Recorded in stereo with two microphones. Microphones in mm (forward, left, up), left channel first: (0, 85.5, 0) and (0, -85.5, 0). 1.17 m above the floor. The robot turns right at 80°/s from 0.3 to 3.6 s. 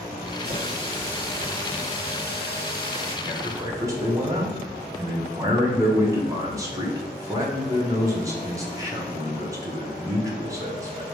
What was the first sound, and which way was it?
A running tap, 70° right.